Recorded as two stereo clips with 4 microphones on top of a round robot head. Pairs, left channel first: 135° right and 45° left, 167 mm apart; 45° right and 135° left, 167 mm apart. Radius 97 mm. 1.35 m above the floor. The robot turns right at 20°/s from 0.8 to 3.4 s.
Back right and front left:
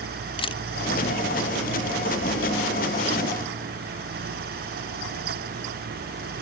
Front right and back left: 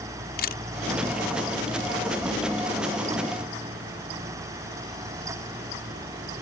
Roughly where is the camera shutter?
Right.